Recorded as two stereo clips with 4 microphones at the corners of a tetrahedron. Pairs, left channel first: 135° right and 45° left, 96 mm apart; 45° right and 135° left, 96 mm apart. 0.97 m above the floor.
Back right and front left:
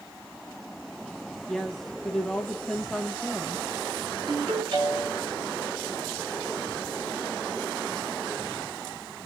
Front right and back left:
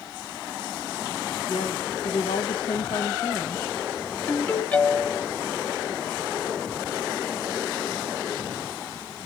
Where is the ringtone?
35° left, 4 m.